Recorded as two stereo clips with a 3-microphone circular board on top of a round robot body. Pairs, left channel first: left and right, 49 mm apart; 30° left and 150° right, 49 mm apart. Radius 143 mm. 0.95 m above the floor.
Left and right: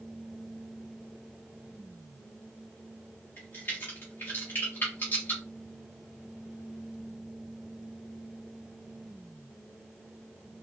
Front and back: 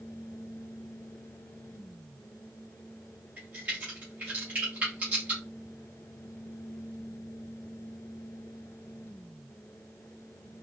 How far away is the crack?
About 0.8 m.